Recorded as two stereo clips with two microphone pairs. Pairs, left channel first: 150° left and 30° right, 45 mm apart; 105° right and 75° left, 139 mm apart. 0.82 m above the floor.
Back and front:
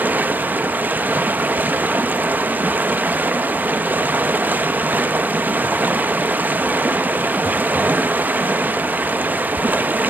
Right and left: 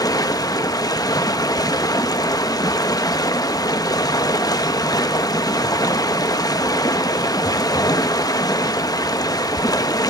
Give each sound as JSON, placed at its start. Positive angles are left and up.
{"t": 0.0, "sound": "running water", "azimuth_deg": -55, "distance_m": 0.7}